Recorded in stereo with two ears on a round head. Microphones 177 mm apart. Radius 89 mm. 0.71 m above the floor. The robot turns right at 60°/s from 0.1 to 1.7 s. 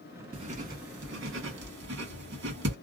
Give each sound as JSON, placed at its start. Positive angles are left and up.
{"t": 0.3, "sound": "writing", "side_deg": -25, "distance_m": 1.4}